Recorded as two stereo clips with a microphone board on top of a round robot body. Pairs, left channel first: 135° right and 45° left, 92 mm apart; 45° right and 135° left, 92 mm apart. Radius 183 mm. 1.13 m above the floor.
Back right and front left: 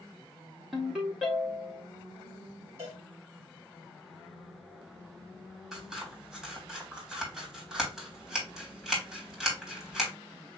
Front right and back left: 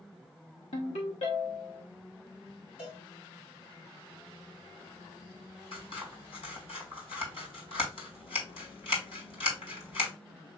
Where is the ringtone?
40° right, 0.7 m.